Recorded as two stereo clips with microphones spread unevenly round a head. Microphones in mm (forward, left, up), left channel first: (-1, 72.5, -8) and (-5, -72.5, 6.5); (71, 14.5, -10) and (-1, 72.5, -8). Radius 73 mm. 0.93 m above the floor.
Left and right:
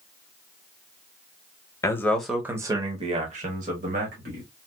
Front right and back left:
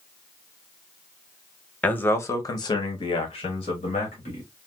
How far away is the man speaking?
About 0.9 m.